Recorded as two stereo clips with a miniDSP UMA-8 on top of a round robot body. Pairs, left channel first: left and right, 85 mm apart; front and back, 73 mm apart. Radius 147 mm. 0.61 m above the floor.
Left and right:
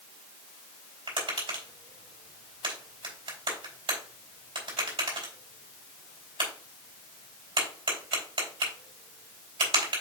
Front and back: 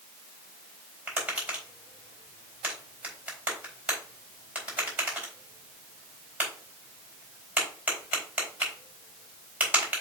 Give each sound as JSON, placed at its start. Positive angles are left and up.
{"t": 1.1, "sound": "tapping", "azimuth_deg": -110, "distance_m": 4.0}